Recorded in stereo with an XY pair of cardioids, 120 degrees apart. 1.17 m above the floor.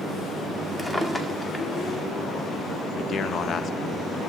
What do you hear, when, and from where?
0.8 s a drawer: 10° left, 1.8 m
3.0 s a man speaking: 50° left, 0.9 m